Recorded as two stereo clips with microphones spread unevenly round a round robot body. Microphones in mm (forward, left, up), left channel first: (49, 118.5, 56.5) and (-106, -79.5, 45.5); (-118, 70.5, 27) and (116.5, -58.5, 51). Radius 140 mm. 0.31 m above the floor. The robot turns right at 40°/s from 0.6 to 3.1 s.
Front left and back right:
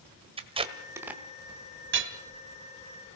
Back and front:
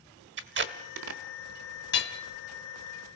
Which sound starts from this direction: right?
Tape being pulled, at 0.4 s.